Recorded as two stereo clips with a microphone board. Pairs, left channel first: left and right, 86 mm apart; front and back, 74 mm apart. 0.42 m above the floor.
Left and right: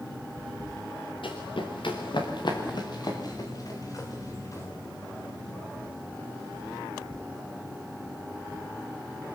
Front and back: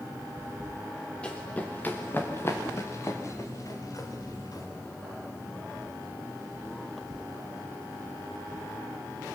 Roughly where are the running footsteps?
Left.